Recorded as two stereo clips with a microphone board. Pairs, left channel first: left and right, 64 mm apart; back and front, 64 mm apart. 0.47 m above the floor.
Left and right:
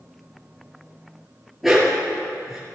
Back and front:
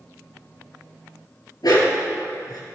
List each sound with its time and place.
1.6 s a dog barking: 175° right, 3 m